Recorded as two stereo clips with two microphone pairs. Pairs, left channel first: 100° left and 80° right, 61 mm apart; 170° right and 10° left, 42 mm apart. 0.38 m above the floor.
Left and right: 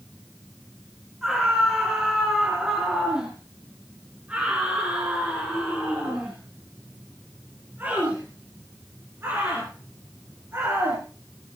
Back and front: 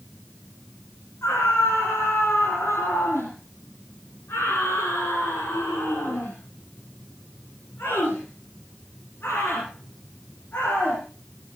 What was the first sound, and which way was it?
A scream, 165° right.